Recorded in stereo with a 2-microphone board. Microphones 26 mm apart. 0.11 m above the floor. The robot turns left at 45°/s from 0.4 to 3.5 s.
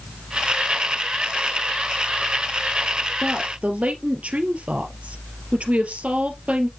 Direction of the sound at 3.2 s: 55° right (ahead or behind).